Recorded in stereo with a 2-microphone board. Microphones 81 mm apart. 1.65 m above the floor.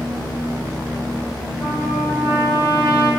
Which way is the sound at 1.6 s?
30° right (ahead or behind).